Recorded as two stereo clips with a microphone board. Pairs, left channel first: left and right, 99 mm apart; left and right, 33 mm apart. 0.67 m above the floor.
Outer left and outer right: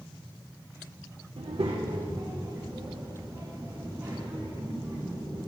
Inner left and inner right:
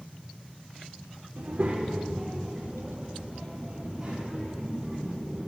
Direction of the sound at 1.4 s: 80° right.